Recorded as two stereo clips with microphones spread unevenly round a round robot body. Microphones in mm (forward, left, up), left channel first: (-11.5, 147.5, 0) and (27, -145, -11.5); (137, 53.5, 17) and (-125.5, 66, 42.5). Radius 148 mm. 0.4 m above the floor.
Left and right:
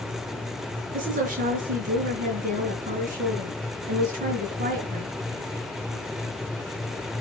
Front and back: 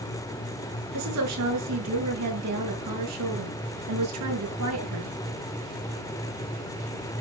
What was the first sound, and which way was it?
A woman speaking, 145° right.